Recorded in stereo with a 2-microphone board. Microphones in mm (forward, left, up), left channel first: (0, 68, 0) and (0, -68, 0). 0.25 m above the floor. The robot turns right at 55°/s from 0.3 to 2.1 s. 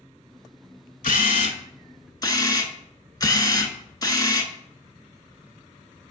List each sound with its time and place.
1.0 s a camera shutter: 90° left, 0.5 m; by 4.5 s 150° left, 0.5 m